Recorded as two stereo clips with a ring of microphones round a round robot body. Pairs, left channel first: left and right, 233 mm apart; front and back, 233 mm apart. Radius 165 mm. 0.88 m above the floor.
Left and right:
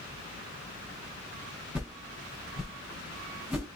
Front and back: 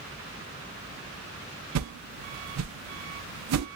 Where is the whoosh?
175° right, 0.6 m.